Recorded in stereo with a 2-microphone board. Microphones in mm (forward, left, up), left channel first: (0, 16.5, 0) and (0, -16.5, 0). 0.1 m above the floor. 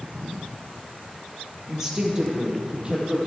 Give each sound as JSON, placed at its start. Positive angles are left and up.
{"t": 1.7, "sound": "a woman speaking", "side_deg": -15, "distance_m": 2.0}